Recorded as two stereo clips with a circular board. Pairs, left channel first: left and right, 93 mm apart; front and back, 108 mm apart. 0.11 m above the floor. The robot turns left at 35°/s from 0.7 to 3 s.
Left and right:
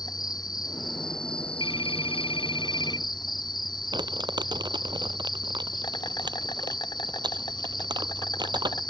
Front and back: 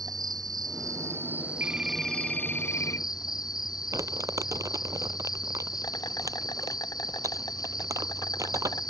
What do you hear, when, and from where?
0.0 s an insect: 130° left; by 8.9 s 50° left
1.6 s a phone ringing: 110° left; by 3.1 s 60° left
3.9 s crumpling: 125° right